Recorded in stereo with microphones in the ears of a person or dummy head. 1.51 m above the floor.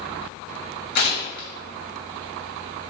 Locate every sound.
0.9 s tearing paper: 50° left (ahead or behind), 0.8 m